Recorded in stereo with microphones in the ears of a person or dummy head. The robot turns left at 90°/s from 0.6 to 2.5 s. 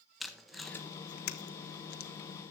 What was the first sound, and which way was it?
Tape being pulled, 5° right (ahead or behind).